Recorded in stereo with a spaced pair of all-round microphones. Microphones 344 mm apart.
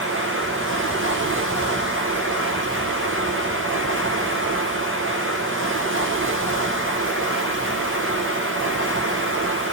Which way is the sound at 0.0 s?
35° right (ahead or behind).